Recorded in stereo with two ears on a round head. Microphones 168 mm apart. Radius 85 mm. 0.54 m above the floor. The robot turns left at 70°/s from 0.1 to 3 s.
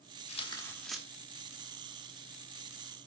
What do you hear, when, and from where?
0.3 s tearing paper: 45° left, 1.4 m; by 1.0 s 5° right, 1.4 m